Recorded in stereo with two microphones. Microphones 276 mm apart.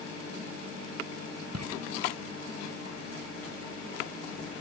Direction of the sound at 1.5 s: 65° right (ahead or behind).